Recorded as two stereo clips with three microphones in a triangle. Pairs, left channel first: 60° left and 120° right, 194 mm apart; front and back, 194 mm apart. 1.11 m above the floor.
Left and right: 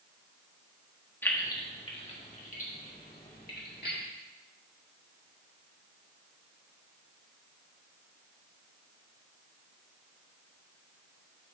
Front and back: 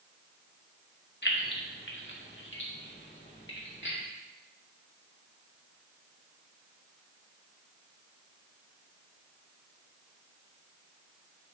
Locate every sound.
1.2 s keys jangling: 20° right, 1.1 m; by 4.0 s 25° left, 2 m